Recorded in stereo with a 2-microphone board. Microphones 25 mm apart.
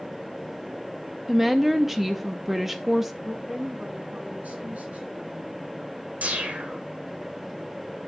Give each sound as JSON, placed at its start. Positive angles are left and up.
{"t": 1.3, "sound": "a woman speaking", "side_deg": -10, "distance_m": 0.6}
{"t": 3.2, "sound": "a woman speaking", "side_deg": -85, "distance_m": 5.5}
{"t": 6.2, "sound": "a whoosh", "side_deg": -80, "distance_m": 2.0}